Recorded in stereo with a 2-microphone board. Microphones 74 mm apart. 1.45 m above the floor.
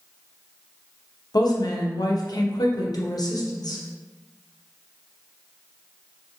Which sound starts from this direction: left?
A woman speaking, at 1.3 s.